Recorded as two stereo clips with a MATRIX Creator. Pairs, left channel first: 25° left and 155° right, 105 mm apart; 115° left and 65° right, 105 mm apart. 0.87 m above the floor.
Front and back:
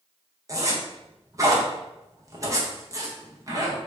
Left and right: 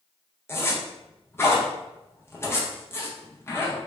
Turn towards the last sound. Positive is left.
turn(degrees=165)